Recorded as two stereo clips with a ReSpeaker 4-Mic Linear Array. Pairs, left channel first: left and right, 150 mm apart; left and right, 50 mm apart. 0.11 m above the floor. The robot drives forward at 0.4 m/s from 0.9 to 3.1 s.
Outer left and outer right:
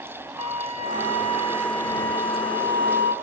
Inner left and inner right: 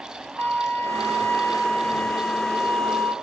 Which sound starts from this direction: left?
A flute, at 0.4 s.